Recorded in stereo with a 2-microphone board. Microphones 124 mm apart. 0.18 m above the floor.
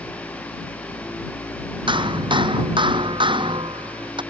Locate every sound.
1.9 s hammering: 40° right (ahead or behind)